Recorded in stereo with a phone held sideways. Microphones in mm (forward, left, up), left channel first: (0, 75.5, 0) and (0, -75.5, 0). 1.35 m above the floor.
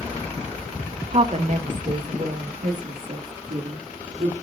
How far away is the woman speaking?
About 0.8 m.